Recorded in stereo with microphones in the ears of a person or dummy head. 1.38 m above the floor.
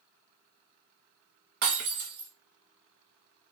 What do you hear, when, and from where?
1.6 s breaking glass: 55° right (ahead or behind), 0.9 m